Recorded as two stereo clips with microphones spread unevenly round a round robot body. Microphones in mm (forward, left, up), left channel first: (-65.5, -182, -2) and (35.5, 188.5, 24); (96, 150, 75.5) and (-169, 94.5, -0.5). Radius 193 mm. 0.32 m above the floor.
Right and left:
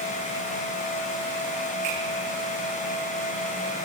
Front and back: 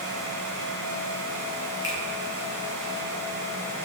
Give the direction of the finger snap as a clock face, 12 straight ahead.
9 o'clock.